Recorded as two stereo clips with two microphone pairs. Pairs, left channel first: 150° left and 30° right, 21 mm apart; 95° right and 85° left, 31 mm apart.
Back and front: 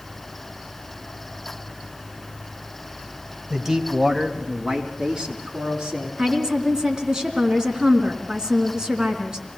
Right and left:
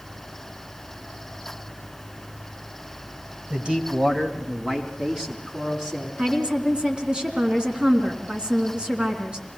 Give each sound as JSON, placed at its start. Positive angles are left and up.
{"t": 3.5, "sound": "a man speaking", "azimuth_deg": 40, "distance_m": 1.8}
{"t": 6.2, "sound": "a woman speaking", "azimuth_deg": 25, "distance_m": 3.5}